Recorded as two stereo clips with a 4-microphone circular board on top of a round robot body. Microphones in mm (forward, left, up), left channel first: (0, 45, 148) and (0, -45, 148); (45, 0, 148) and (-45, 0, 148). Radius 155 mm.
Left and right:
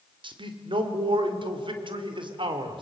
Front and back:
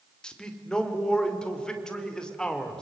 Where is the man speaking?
80° right, 3 m.